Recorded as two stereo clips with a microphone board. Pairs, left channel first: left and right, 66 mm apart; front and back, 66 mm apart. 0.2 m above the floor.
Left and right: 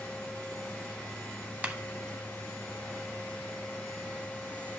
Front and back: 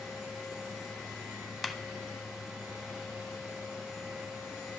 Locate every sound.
1.6 s a clap: 90° right, 0.8 m